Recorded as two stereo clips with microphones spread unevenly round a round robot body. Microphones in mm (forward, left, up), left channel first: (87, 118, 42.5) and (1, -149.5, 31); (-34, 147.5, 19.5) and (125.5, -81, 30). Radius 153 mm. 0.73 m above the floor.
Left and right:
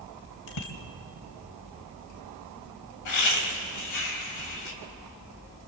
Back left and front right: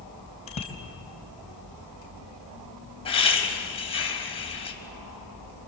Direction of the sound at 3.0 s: 55° left.